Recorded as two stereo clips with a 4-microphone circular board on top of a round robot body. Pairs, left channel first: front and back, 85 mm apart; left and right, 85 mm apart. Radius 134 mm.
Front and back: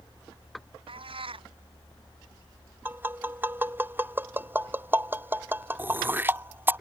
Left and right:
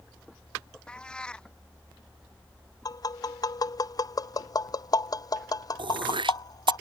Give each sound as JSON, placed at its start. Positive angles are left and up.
{"t": 0.9, "sound": "a cat meowing", "azimuth_deg": 170}
{"t": 2.9, "sound": "tapping", "azimuth_deg": 120}
{"t": 5.8, "sound": "throat clearing", "azimuth_deg": -115}